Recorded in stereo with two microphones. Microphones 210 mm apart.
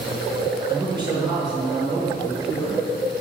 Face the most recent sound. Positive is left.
turn(degrees=-20)  # may be behind; listen again after turning